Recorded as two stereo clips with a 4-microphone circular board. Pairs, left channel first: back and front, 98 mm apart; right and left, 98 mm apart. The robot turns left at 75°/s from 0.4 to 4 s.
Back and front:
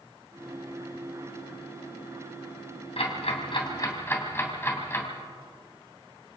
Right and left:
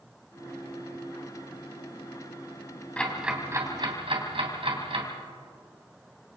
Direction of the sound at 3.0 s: 165° right.